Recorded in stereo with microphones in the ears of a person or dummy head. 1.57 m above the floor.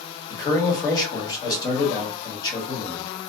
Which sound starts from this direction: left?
A man speaking, at 0.3 s.